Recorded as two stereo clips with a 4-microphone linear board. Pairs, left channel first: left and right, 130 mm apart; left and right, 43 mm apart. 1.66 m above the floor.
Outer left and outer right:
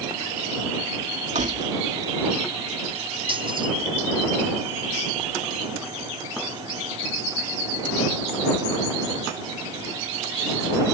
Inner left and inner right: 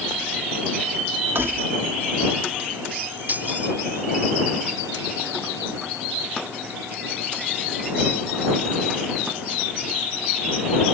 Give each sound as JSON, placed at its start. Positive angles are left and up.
{"t": 1.4, "sound": "keys jangling", "side_deg": -70}